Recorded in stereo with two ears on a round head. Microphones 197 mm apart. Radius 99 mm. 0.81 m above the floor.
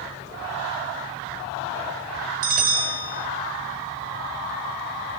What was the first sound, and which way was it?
A bell, 35° right (ahead or behind).